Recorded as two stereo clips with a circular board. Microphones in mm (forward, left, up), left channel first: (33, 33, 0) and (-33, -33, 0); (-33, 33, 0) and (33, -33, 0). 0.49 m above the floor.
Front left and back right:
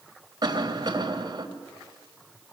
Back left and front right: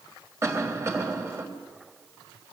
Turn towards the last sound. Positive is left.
turn(degrees=-100)